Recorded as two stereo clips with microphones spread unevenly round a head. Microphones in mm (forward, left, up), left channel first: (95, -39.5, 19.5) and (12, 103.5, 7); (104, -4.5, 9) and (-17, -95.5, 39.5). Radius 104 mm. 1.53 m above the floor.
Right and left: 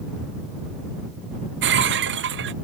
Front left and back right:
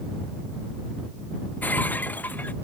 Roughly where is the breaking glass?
Behind left.